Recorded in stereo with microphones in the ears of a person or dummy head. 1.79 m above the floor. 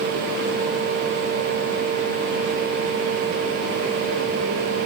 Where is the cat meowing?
I don't hear a cat meowing.